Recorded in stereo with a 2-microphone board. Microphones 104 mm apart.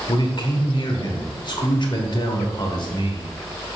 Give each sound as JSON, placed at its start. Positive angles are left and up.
{"t": 0.1, "sound": "a man speaking", "side_deg": 45, "distance_m": 1.4}